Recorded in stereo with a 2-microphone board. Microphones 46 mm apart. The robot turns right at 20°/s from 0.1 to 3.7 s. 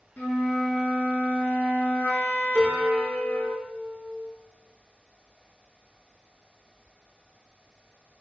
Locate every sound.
0.2 s a flute: 60° left, 0.6 m; by 3.5 s 130° left, 0.6 m
2.5 s a piano: 20° left (ahead or behind), 0.6 m; by 4.3 s 35° left (ahead or behind), 0.6 m